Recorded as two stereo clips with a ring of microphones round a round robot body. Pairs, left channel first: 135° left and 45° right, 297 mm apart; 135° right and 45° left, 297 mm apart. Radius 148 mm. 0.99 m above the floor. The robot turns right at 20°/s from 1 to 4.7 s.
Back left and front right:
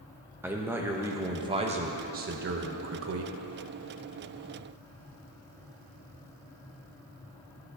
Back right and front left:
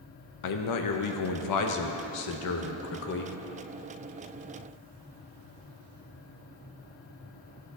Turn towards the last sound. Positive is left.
turn(degrees=-55)